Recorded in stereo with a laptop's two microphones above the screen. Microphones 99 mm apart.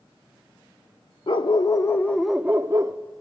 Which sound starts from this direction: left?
A dog barking, at 1.3 s.